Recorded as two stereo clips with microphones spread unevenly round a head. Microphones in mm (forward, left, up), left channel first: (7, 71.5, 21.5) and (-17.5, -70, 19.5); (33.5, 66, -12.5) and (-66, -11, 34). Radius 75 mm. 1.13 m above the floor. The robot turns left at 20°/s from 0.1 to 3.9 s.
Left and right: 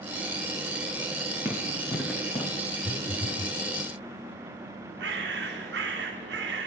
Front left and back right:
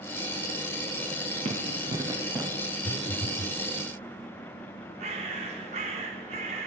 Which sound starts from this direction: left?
A phone buzzing, at 2.8 s.